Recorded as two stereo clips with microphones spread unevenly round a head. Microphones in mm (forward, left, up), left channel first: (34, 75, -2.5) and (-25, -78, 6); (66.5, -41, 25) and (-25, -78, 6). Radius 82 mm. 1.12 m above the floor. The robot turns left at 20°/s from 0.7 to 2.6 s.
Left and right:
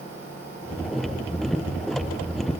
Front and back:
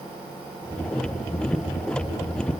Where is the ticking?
No ticking in this recording.